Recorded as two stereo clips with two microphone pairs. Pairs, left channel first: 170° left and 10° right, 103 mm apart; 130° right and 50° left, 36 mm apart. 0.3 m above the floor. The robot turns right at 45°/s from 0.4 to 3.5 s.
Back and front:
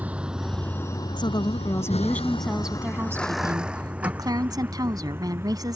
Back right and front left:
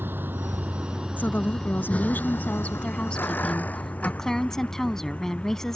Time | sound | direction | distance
0.0 | a vehicle | 65° left | ?
1.2 | a woman speaking | 160° right | ?